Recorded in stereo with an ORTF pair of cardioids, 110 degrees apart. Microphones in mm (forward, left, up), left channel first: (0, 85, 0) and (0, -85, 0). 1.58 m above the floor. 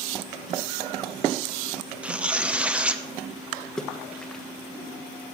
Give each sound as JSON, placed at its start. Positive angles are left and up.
{"t": 2.0, "sound": "tearing paper", "azimuth_deg": -5, "distance_m": 1.0}
{"t": 3.8, "sound": "a splash", "azimuth_deg": 5, "distance_m": 1.4}